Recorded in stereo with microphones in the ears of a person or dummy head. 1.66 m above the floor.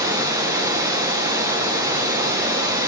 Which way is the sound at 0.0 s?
15° right (ahead or behind).